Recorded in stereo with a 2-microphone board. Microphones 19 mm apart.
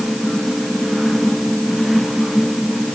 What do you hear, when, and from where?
Only background noise.